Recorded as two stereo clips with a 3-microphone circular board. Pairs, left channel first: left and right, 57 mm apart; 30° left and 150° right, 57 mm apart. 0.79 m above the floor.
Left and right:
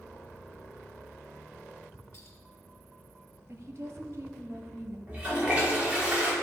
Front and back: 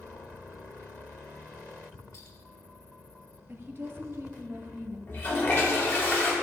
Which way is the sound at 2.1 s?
55° left.